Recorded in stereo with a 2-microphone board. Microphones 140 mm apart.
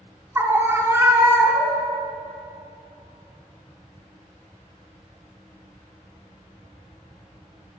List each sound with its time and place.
0.3 s a scream: 15° right (ahead or behind), 1.1 m